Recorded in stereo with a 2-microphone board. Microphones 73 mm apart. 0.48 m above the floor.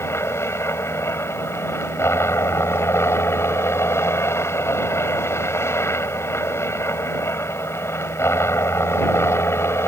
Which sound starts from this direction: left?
A helicopter, at 0.0 s.